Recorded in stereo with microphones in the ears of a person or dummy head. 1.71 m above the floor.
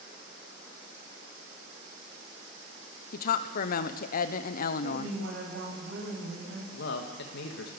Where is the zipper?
No zipper in this recording.